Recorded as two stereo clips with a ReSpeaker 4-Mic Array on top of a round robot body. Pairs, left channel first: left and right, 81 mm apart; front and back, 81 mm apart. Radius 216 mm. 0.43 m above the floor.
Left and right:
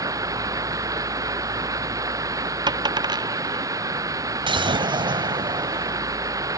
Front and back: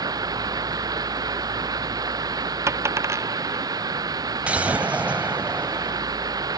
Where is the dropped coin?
125° right.